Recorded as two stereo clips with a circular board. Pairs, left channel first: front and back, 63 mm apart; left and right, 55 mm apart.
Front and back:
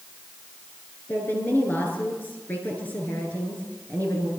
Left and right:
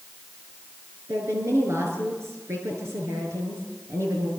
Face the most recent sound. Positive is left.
turn(degrees=-60)